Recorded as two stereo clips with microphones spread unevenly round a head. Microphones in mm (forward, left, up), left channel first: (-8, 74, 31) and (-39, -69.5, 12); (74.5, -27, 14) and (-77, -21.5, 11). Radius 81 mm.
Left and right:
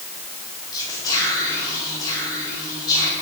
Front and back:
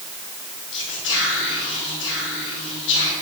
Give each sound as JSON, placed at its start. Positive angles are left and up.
{"t": 0.7, "sound": "whispering", "azimuth_deg": 10, "distance_m": 4.5}